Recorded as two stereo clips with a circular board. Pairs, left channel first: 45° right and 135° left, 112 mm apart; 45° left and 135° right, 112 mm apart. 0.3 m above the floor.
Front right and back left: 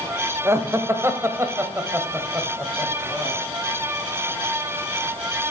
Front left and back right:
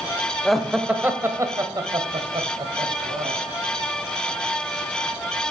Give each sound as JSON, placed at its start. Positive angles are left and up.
{"t": 0.5, "sound": "laughter", "azimuth_deg": 130, "distance_m": 0.9}